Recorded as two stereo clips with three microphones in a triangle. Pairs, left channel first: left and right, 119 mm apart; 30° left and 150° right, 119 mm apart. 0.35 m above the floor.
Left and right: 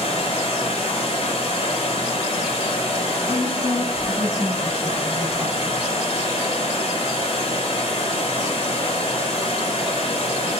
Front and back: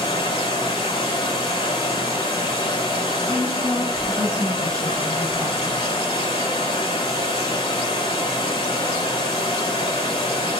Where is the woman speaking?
110° right, 1.6 m.